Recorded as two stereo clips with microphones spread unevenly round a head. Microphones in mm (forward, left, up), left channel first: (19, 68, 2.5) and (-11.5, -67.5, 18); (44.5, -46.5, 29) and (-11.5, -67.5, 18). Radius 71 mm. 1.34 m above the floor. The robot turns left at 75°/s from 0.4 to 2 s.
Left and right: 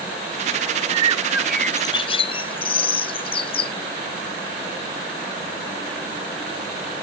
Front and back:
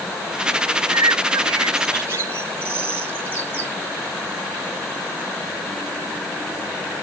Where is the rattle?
No rattle in this recording.